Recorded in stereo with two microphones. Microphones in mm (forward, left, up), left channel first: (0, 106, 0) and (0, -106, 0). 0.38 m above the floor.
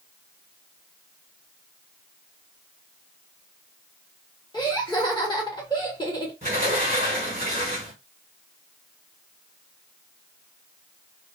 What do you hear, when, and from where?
4.5 s laughter: 20° left (ahead or behind), 1.3 m
6.4 s a sliding door: 30° right (ahead or behind), 1.5 m